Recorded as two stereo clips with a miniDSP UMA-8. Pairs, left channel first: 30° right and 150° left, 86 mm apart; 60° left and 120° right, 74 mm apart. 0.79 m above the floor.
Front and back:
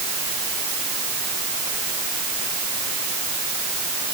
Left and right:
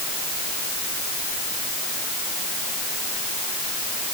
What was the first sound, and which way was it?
Only background noise.